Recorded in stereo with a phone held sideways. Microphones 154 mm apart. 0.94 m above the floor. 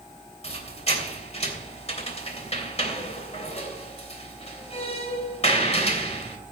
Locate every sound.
0.4 s a squeak: 45° left (ahead or behind), 3 m